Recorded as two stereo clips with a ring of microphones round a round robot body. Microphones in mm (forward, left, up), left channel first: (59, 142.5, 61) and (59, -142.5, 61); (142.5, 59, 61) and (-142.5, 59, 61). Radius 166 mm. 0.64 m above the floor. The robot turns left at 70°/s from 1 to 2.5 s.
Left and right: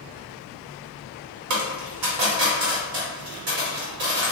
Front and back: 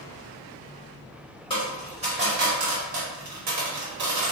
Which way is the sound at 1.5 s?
75° right.